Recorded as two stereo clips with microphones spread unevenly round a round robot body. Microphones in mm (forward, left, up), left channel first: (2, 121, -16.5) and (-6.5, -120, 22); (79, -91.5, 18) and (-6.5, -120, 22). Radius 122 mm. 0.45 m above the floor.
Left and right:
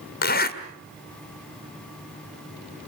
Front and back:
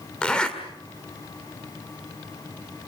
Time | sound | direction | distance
0.2 | a zipper | 95° left | 1.7 m